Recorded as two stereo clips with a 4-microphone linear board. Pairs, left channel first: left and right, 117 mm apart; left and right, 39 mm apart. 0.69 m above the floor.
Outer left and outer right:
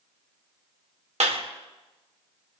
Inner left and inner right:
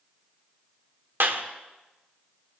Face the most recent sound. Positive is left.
turn(degrees=-70)  # may be behind; listen again after turning